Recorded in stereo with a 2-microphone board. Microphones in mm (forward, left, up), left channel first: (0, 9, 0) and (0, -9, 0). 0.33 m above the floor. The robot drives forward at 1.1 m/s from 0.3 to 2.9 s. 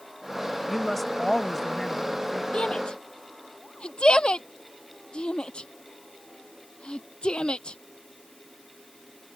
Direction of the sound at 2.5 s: 65° left (ahead or behind).